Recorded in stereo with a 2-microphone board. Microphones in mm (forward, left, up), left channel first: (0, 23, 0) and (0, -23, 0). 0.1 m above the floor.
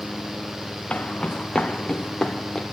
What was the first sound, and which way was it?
Footsteps, 25° left (ahead or behind).